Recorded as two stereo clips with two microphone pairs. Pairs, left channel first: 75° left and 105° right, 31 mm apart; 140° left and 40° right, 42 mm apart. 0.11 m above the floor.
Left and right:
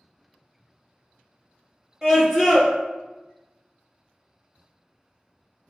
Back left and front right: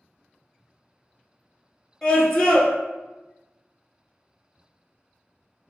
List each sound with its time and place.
2.0 s a scream: 155° right, 1.6 m